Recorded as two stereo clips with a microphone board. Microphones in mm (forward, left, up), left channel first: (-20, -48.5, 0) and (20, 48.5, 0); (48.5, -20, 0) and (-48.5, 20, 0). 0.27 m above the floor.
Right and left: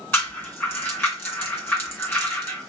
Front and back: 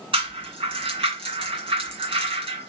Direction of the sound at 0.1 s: Straight behind.